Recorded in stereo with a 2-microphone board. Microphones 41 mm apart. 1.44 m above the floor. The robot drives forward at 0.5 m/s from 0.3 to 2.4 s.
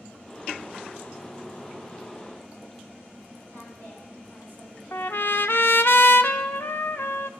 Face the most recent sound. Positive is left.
turn(degrees=65)  # may be behind; listen again after turning